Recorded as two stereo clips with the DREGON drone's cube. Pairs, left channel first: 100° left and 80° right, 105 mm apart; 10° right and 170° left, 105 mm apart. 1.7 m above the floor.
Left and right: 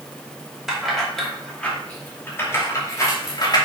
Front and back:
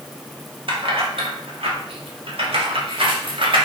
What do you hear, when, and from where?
0.7 s keys jangling: 165° right, 2.5 m; by 3.6 s 145° left, 2.5 m